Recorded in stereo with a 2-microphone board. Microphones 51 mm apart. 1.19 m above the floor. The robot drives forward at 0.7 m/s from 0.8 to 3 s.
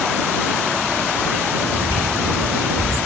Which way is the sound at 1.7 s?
65° right (ahead or behind).